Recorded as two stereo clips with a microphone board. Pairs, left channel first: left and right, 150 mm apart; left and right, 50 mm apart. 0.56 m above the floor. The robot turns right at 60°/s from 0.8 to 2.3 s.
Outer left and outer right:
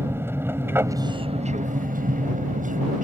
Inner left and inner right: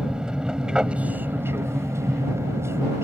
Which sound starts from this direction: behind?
An aircraft, at 0.0 s.